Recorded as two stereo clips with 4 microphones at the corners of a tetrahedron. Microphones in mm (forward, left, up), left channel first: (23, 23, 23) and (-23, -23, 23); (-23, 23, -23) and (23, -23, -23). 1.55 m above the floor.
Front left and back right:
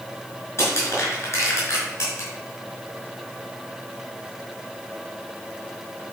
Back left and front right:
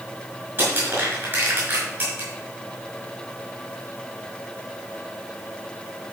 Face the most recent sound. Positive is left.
turn(degrees=0)